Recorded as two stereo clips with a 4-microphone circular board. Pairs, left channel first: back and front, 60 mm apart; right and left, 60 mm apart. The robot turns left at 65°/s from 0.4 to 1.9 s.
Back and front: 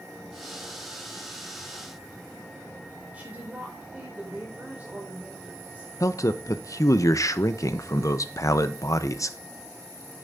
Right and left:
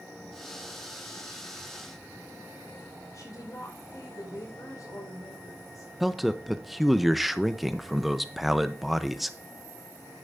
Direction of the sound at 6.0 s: Straight behind.